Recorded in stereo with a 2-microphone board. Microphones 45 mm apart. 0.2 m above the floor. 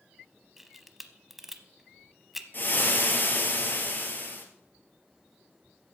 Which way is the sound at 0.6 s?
5° right (ahead or behind).